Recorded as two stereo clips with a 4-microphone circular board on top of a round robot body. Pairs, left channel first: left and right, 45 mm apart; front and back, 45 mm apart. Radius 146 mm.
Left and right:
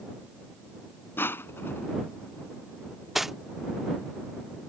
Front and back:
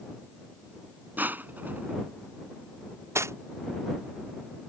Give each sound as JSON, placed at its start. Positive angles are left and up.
{"t": 1.2, "sound": "crushing", "azimuth_deg": 130}
{"t": 3.1, "sound": "cutlery clinking", "azimuth_deg": -175}